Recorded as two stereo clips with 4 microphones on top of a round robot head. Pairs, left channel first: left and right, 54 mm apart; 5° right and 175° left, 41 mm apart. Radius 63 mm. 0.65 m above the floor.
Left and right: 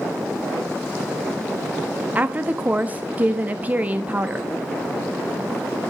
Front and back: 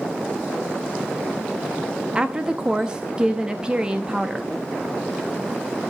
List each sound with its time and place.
2.1 s a woman speaking: 130° right, 1.0 m